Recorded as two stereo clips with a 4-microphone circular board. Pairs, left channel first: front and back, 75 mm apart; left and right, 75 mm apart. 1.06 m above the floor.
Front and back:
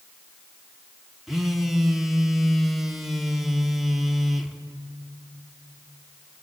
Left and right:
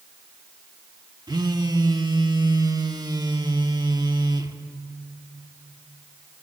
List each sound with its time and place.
1.3 s a phone buzzing: 90° right, 1.3 m